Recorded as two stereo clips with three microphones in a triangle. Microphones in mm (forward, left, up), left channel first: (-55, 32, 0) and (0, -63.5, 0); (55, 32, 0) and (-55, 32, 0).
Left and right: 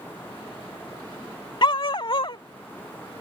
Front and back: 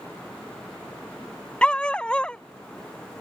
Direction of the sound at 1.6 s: 80° left.